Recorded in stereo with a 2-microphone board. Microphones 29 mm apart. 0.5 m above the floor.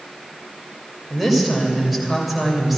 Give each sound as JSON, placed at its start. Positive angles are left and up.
{"t": 1.1, "sound": "a woman speaking", "side_deg": -5, "distance_m": 2.5}